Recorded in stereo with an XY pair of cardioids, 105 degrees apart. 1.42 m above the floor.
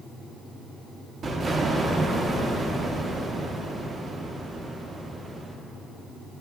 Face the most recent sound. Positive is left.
turn(degrees=-45)